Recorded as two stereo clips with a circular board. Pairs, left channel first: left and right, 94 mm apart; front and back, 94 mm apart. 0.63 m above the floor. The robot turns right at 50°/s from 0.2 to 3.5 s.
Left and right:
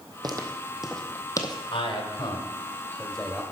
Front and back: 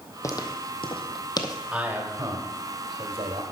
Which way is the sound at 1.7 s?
105° left.